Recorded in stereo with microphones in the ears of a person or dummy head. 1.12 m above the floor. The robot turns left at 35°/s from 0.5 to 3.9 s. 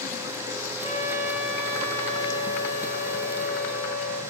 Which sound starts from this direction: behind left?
A trumpet, at 0.8 s.